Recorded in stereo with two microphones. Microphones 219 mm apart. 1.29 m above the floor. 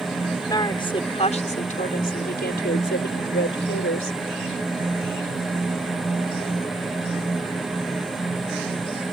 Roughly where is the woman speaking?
Centre.